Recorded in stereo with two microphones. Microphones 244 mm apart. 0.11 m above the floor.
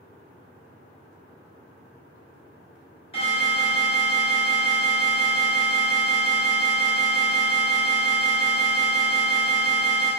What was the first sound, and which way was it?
An alarm, 25° left (ahead or behind).